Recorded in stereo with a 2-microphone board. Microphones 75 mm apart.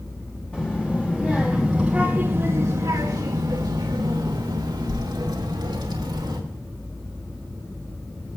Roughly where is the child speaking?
Left.